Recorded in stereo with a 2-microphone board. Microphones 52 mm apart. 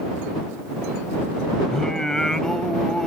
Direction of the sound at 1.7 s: 10° left (ahead or behind).